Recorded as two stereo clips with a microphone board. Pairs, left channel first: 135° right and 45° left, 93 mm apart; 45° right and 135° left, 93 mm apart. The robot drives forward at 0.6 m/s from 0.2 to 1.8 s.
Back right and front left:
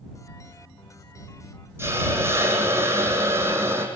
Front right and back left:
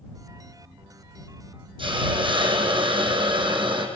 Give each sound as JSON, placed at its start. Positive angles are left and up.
{"t": 1.8, "sound": "a hiss", "azimuth_deg": 105, "distance_m": 6.0}